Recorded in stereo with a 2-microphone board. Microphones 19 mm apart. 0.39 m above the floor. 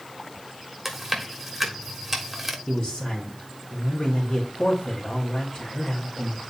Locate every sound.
0.8 s chewing: 10° right (ahead or behind), 1.4 m
2.7 s a man speaking: 50° left (ahead or behind), 3 m